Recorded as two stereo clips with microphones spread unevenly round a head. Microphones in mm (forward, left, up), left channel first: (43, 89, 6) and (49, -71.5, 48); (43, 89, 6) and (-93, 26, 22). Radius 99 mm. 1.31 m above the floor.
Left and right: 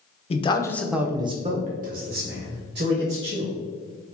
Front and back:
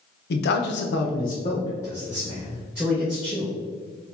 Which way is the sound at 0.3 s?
35° left.